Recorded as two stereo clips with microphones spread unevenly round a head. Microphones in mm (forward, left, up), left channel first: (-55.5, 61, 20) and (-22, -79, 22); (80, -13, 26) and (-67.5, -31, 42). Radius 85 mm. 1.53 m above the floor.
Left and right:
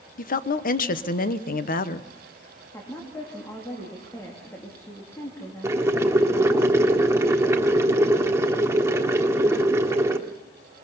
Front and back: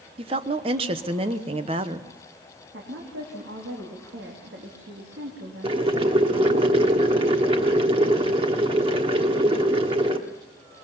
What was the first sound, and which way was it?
A woman speaking, 130° left.